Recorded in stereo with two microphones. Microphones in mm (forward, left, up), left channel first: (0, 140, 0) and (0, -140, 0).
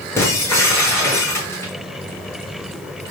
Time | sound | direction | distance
0.2 | breaking glass | 10° left (ahead or behind) | 8 m